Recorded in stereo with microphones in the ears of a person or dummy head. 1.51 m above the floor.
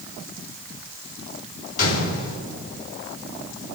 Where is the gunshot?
55° left (ahead or behind), 3.5 m.